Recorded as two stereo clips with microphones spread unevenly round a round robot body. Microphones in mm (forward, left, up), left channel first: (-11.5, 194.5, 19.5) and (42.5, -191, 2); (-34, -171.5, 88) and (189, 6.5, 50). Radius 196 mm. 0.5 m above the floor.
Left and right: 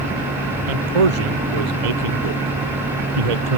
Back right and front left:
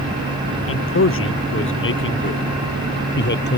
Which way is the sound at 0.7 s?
100° right.